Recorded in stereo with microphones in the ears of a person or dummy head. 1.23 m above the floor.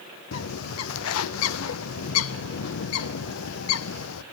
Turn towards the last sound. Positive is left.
turn(degrees=75)  # may be behind; listen again after turning